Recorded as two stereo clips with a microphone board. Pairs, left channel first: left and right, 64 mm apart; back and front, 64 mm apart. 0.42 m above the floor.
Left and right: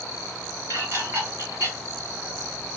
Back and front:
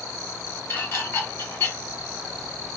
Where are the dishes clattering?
135° right, 2.5 m.